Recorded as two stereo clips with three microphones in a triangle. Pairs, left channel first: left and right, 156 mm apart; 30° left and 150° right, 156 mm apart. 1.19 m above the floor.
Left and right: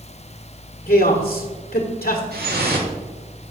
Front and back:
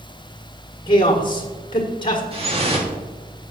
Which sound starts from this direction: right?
Dripping, at 2.3 s.